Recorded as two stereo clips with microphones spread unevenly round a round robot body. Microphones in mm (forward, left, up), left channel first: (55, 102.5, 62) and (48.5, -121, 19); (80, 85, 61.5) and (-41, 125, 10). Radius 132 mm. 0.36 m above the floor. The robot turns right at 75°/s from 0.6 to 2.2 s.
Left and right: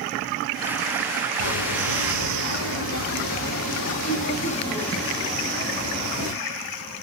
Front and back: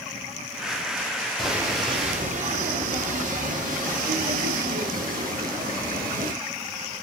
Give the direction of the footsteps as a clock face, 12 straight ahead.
10 o'clock.